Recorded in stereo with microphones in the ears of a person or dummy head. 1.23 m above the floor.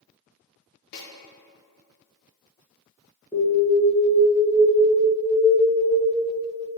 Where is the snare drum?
50° left (ahead or behind), 0.7 m.